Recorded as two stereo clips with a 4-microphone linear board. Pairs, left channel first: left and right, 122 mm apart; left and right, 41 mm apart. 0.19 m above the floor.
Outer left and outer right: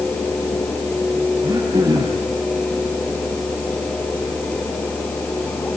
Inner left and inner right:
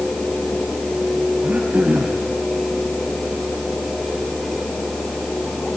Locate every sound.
1.4 s throat clearing: 30° right (ahead or behind), 6 m